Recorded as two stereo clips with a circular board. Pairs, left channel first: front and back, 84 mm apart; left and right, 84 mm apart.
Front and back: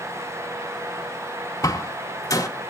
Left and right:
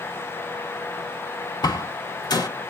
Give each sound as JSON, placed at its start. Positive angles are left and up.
{"t": 1.6, "sound": "a door slam", "azimuth_deg": 50, "distance_m": 1.8}